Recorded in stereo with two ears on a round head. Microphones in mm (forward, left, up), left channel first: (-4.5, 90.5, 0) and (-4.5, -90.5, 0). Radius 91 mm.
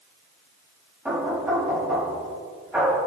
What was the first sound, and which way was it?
Knocking, 5° right (ahead or behind).